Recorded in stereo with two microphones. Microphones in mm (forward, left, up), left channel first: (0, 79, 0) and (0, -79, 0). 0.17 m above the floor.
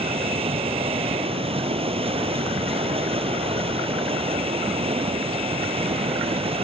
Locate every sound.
0.0 s running water: 40° right (ahead or behind), 1.3 m